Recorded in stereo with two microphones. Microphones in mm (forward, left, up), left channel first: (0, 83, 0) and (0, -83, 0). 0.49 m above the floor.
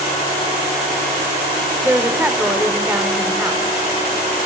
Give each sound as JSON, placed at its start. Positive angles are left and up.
{"t": 1.8, "sound": "a woman speaking", "side_deg": -10, "distance_m": 1.2}